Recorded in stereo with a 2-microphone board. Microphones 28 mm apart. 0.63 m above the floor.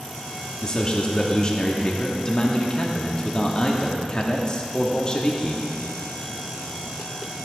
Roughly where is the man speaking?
Left.